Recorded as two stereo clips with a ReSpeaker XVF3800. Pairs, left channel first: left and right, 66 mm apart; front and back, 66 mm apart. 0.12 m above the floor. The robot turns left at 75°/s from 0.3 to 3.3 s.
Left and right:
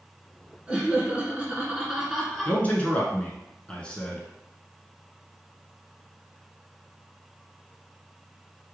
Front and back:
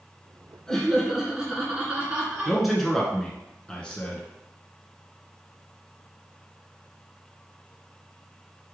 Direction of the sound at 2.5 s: 110° left.